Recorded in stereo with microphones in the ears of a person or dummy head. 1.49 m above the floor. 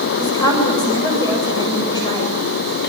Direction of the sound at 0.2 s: 25° left (ahead or behind).